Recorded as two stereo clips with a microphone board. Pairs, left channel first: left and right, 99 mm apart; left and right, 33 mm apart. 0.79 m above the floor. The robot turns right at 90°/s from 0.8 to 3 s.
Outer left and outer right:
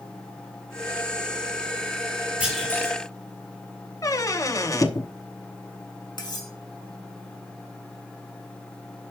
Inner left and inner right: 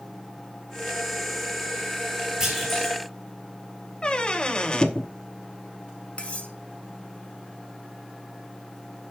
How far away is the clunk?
About 6 m.